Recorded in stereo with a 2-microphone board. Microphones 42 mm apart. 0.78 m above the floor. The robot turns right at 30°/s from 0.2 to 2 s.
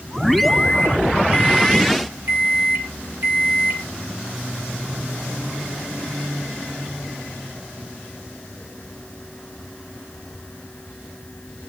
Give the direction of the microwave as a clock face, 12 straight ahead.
4 o'clock.